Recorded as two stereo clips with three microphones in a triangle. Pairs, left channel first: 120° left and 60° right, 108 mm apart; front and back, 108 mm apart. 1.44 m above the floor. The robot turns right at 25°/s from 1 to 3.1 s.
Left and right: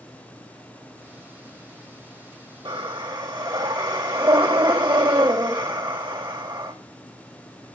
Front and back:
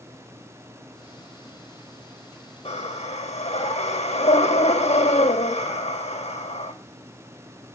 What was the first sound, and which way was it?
Breathing, 20° right.